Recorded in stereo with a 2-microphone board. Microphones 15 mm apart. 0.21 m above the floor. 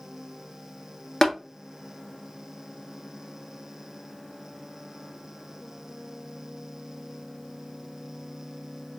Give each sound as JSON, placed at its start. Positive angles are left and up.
{"t": 1.2, "sound": "tapping", "side_deg": 25, "distance_m": 1.3}